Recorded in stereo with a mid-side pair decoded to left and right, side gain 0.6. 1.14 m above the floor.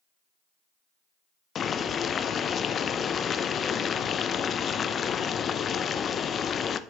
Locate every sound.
1.6 s boiling: 40° left, 0.5 m